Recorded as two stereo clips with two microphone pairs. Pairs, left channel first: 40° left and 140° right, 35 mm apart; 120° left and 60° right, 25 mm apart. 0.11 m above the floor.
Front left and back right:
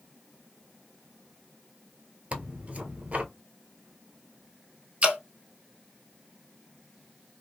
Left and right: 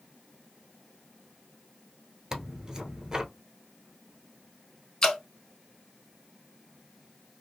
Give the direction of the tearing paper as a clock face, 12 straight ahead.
4 o'clock.